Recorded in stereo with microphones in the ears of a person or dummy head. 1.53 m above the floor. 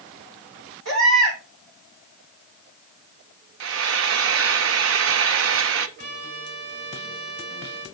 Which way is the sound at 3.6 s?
75° right (ahead or behind).